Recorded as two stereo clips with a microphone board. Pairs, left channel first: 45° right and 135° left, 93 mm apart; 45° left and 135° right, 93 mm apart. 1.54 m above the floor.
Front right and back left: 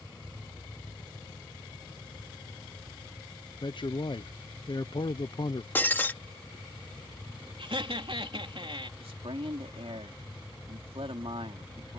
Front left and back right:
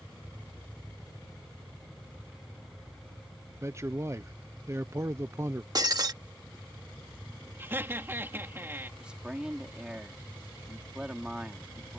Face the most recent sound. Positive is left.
turn(degrees=145)